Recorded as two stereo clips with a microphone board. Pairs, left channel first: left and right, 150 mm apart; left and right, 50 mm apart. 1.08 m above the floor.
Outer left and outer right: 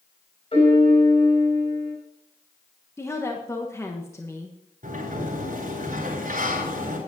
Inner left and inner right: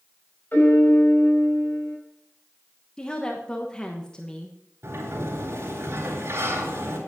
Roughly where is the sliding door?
Right.